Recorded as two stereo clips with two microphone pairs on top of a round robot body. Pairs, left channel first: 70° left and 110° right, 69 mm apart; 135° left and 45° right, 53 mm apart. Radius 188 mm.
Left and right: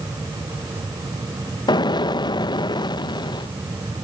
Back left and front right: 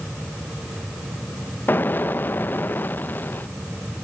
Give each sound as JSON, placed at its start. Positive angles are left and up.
{"t": 1.7, "sound": "an explosion", "azimuth_deg": 80}